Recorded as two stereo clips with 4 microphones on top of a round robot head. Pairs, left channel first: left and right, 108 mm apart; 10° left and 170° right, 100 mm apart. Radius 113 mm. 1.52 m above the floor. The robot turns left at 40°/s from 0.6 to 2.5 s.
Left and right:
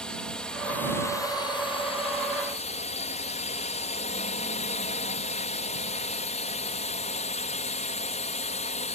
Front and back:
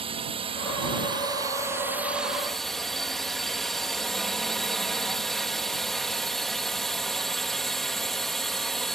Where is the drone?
175° left; by 8.9 s 95° left.